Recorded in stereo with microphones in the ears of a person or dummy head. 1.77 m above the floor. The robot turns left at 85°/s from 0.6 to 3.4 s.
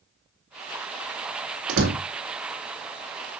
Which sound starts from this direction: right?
A door slam, at 1.7 s.